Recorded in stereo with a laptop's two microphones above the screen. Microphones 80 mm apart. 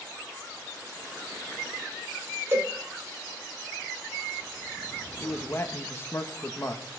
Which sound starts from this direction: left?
A man speaking, at 5.2 s.